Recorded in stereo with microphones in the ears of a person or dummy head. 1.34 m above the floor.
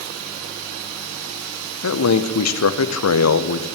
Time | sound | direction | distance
1.8 | a man speaking | 80° left | 0.9 m